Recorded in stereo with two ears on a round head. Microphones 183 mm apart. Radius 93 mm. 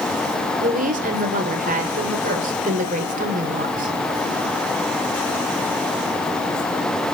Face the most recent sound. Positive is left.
turn(degrees=-45)  # may be behind; listen again after turning